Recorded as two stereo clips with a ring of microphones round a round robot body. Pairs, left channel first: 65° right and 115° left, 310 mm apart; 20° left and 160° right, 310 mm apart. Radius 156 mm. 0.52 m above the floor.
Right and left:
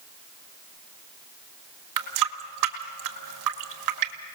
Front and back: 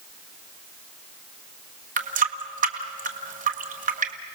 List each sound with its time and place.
2.0 s a running tap: 135° left, 1.6 m